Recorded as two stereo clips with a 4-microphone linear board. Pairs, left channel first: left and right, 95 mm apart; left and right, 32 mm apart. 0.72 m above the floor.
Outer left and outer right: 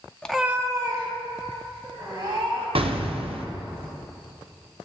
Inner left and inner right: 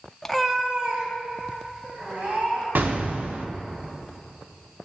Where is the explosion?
80° right, 0.6 m.